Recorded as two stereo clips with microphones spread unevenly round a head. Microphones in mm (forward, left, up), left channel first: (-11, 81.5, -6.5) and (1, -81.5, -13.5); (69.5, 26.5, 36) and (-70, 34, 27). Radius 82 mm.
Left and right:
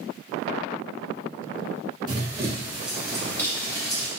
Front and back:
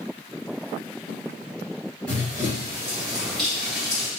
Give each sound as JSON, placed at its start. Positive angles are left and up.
{"t": 2.1, "sound": "running footsteps", "azimuth_deg": -70, "distance_m": 1.8}